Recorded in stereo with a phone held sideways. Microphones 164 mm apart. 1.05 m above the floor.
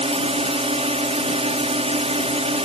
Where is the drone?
40° right (ahead or behind).